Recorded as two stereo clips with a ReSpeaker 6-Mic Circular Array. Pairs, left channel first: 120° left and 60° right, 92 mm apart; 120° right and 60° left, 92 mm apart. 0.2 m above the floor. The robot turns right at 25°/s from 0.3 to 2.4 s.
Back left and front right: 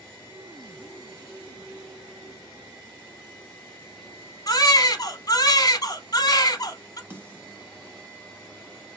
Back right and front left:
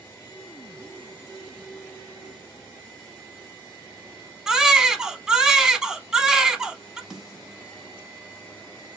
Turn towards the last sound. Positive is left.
turn(degrees=-20)